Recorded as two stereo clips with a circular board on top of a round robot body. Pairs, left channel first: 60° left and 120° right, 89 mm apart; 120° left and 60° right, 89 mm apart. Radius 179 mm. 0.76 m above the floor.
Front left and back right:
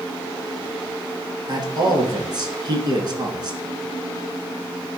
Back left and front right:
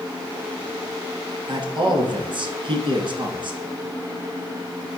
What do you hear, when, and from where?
1.5 s a man speaking: 85° right, 1.9 m